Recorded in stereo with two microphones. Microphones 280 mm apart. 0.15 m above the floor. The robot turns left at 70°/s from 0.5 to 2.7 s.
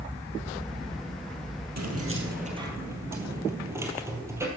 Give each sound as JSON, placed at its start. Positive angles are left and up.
{"t": 1.8, "sound": "keys jangling", "azimuth_deg": -105, "distance_m": 2.5}